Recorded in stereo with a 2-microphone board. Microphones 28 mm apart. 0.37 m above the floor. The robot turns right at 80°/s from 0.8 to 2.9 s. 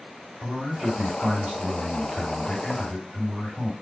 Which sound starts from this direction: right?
A man speaking, at 0.4 s.